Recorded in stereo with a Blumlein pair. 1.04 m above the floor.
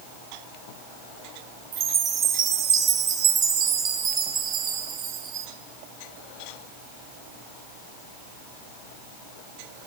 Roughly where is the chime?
Ahead right.